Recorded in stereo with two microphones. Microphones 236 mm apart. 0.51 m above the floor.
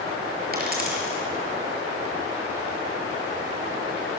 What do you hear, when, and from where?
0.5 s a dropped coin: 40° right (ahead or behind), 5 m